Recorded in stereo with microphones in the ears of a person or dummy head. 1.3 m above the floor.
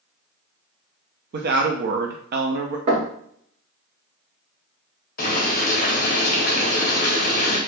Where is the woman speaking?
50° right (ahead or behind), 0.5 m.